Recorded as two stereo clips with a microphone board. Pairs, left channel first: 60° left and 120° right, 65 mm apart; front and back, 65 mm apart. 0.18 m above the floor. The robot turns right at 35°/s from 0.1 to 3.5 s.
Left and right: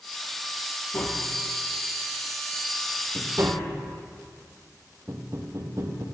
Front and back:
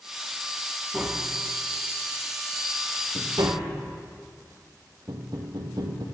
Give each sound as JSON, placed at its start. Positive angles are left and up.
{"t": 0.9, "sound": "tapping", "azimuth_deg": 105, "distance_m": 2.0}